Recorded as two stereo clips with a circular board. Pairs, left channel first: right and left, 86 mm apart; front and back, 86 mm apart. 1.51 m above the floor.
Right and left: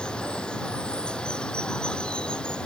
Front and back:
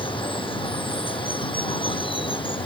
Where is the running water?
10° right.